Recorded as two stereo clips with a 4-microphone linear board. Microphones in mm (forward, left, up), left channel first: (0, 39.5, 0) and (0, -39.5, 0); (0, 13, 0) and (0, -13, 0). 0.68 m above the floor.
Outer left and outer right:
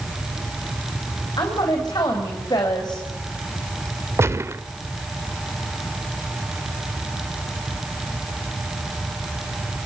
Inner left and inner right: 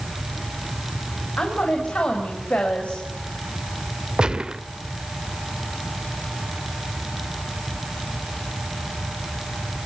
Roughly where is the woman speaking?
Left.